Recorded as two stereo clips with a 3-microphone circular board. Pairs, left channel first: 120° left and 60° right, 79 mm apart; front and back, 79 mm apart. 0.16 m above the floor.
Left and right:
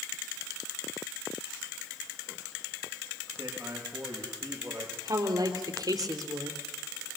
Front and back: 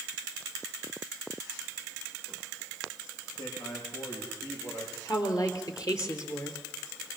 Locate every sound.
3.4 s a man speaking: 5° left, 6.5 m
5.0 s a woman speaking: 35° right, 3 m